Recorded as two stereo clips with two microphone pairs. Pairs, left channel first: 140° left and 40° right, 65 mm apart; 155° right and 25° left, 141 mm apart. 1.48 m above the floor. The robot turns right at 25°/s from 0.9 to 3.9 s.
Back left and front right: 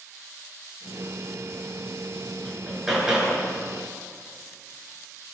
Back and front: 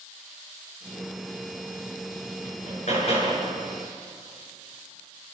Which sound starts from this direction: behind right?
Hammering, at 2.5 s.